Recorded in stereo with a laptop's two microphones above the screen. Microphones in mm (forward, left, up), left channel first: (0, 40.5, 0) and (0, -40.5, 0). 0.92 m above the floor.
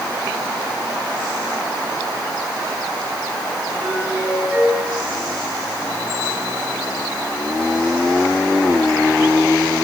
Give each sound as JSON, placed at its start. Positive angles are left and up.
{"t": 3.8, "sound": "a doorbell", "side_deg": -15, "distance_m": 9.0}